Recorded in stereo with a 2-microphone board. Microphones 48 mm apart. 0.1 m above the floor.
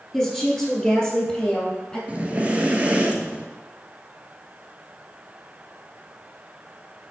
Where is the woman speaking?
10° left (ahead or behind), 1.6 m; by 2.0 s 20° left (ahead or behind), 2.5 m.